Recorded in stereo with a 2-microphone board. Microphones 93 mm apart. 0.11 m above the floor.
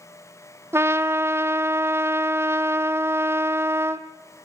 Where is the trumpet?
25° right (ahead or behind), 0.8 m.